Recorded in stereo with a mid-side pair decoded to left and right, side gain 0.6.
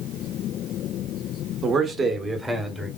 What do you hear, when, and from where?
1.6 s a man speaking: 45° right, 1.0 m; by 2.9 s 15° right, 1.4 m